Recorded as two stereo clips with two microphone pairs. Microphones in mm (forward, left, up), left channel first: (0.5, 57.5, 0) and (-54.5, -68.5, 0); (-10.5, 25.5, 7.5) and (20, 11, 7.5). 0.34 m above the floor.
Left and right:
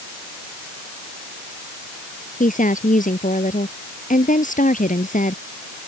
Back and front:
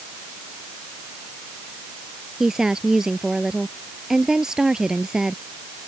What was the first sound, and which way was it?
A woman speaking, 45° left.